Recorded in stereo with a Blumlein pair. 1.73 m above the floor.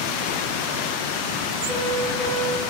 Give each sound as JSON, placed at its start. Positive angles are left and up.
{"t": 1.7, "sound": "a piano", "azimuth_deg": -5, "distance_m": 1.7}